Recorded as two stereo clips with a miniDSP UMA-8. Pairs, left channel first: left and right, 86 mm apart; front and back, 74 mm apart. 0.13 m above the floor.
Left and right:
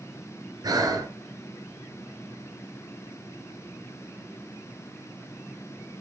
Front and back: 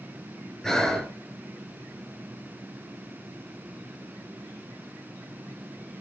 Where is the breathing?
80° right, 2.5 m.